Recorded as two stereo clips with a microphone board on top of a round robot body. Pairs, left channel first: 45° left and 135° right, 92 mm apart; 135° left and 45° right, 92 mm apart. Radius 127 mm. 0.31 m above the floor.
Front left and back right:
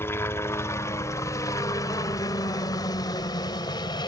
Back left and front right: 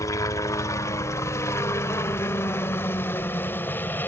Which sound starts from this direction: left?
A helicopter, at 0.0 s.